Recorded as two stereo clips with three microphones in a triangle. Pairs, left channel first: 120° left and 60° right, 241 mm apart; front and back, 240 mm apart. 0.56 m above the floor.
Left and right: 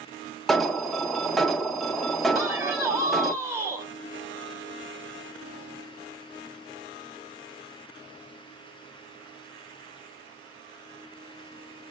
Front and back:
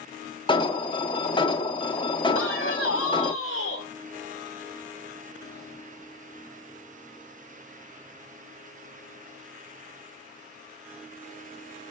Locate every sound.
0.5 s an alarm: 30° left, 0.5 m
2.4 s a man speaking: 15° left, 1.4 m